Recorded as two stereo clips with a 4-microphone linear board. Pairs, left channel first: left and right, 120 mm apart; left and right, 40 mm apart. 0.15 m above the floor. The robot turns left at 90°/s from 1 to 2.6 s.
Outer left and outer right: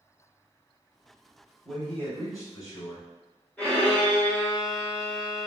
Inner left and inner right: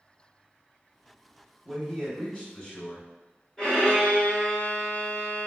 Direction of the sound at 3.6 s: 10° left (ahead or behind).